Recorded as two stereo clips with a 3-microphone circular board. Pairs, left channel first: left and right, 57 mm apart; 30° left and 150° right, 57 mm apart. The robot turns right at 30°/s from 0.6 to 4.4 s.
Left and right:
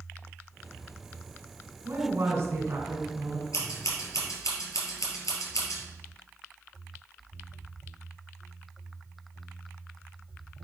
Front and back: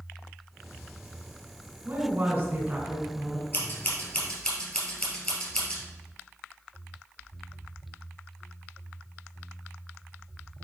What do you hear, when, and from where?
1.9 s a woman speaking: 120° right, 2.5 m; by 3.4 s 70° right, 2.5 m
3.5 s scissors: 85° left, 2.5 m; by 5.8 s 110° left, 2.5 m